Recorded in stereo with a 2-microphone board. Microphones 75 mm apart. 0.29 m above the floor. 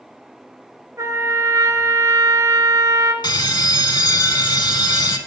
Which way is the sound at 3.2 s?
75° left (ahead or behind).